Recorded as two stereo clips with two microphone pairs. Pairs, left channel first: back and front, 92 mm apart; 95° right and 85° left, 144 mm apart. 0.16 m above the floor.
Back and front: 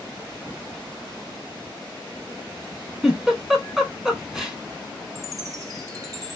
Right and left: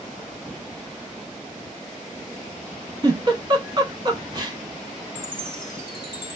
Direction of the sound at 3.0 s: 75° left.